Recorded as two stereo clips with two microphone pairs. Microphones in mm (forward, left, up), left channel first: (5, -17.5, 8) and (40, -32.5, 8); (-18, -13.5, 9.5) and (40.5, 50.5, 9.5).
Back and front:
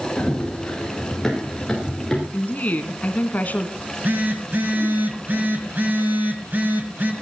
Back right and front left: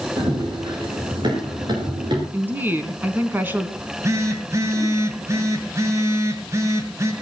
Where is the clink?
I don't hear a clink.